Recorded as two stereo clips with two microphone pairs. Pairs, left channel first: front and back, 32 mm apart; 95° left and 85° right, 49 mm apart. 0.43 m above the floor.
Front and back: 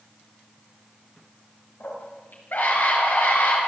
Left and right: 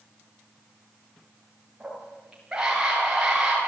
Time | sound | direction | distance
1.8 | a scream | 10° right | 9 m